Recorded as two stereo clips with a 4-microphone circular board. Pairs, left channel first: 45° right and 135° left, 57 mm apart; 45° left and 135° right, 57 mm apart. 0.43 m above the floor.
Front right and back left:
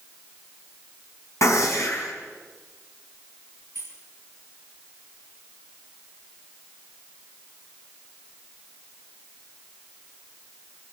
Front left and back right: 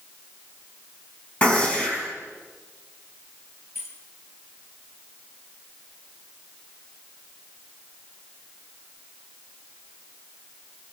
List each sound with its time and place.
1.4 s a gunshot: 20° right, 4 m
3.8 s keys jangling: 85° left, 6.5 m